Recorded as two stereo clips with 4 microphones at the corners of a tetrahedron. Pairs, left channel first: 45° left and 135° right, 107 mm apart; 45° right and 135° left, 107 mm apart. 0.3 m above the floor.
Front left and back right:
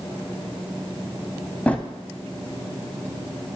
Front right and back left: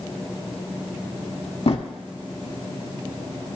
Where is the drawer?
30° right, 0.6 m.